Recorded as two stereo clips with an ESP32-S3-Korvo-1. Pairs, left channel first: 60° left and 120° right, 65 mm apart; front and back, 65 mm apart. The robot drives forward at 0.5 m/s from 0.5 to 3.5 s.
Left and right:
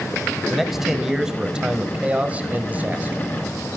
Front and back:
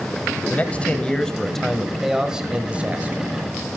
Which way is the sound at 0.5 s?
35° right.